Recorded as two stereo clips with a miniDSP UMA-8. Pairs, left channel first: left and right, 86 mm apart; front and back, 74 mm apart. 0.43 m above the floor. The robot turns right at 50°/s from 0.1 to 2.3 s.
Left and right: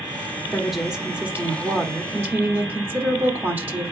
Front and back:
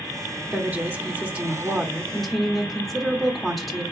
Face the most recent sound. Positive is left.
turn(degrees=-90)